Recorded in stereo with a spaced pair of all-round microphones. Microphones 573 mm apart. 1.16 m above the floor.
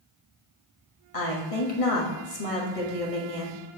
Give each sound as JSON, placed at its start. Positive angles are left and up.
{"t": 1.1, "sound": "a woman speaking", "side_deg": 70, "distance_m": 1.6}